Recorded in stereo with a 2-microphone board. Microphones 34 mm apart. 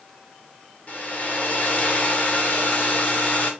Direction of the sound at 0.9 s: 50° left (ahead or behind).